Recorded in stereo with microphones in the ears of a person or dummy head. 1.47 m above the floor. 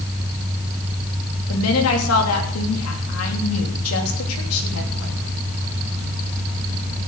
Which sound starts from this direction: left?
A woman speaking, at 1.5 s.